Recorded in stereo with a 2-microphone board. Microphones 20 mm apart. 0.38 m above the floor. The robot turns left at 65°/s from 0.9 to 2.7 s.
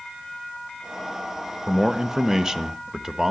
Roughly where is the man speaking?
Ahead right.